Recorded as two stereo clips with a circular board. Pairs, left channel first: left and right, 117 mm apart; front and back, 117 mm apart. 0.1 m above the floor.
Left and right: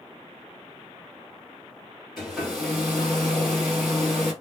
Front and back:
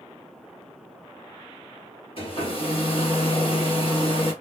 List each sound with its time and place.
2.2 s a hair dryer: straight ahead, 2.5 m